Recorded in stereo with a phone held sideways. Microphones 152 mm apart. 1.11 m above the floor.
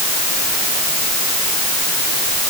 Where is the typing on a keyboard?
I don't hear typing on a keyboard.